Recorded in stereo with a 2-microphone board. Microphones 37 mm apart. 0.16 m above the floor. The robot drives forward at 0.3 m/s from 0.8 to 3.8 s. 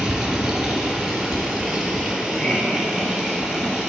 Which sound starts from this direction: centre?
Running water, at 0.0 s.